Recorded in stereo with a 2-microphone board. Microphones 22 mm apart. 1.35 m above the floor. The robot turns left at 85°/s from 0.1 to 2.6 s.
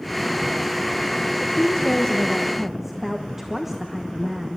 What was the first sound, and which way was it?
A woman speaking, 90° left.